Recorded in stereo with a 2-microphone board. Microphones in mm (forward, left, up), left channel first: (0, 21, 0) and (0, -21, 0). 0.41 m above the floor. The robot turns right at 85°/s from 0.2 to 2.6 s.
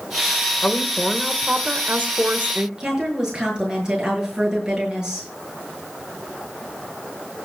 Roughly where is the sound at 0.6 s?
Behind left.